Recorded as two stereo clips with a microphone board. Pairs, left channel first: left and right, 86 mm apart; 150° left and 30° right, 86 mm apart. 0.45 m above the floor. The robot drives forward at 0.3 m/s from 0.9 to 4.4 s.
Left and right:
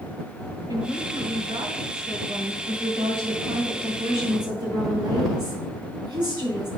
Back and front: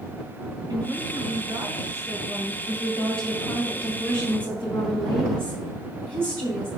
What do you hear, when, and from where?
0.7 s a woman speaking: 65° right, 2.0 m; by 2.6 s 80° right, 1.8 m
2.7 s a woman speaking: 80° right, 3 m; by 6.7 s 95° right, 3 m